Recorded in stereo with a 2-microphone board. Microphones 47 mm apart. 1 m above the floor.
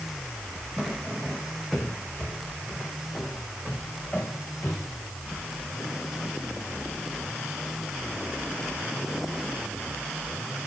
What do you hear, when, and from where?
0.8 s footsteps: 10° left (ahead or behind), 1.9 m; by 9.2 s 40° left (ahead or behind), 6.5 m